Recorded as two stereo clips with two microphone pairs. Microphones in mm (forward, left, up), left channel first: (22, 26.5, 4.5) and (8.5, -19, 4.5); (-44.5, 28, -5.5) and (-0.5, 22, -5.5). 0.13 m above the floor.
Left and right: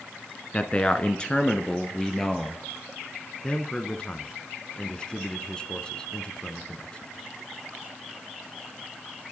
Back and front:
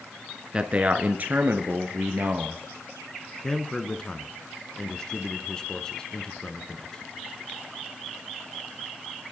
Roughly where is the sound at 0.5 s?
Ahead left.